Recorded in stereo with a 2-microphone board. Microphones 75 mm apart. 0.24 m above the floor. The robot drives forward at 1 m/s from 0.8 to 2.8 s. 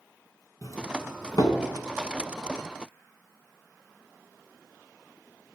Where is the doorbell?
55° left (ahead or behind), 3.5 m; by 1.6 s 60° left (ahead or behind), 3 m.